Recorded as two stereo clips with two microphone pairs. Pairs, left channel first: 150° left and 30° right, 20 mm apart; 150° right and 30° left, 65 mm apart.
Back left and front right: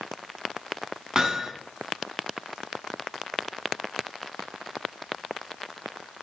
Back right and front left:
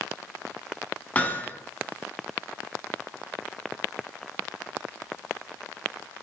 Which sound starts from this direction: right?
Hammering, at 1.1 s.